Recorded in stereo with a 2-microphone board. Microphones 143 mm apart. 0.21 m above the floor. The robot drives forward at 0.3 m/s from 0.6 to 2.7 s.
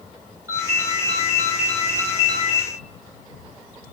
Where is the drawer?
No drawer in this recording.